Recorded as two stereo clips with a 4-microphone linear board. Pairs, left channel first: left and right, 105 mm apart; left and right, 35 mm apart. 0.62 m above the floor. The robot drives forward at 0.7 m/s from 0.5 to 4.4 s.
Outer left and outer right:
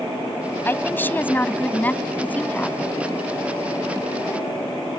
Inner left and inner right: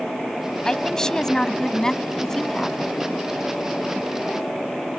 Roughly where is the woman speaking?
Centre.